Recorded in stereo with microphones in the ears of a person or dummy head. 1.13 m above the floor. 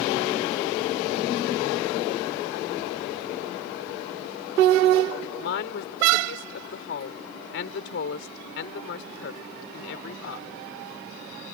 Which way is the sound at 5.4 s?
70° left (ahead or behind).